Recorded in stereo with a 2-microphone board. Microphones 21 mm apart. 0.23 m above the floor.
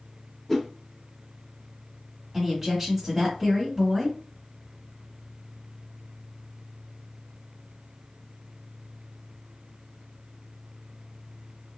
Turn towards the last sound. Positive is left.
turn(degrees=-10)  # may be behind; listen again after turning